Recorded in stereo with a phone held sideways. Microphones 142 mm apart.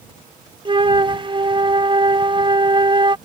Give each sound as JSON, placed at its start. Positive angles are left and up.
{"t": 0.7, "sound": "a flute", "side_deg": -35}